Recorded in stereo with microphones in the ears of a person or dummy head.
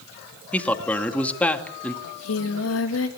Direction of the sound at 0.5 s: 10° left (ahead or behind).